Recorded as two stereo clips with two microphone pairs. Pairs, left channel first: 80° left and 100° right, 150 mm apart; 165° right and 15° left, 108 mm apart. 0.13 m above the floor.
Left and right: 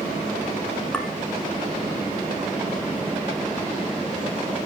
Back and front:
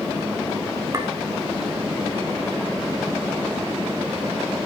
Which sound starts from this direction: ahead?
A clink, at 0.9 s.